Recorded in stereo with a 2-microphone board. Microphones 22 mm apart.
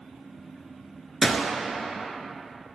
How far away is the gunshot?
About 0.8 m.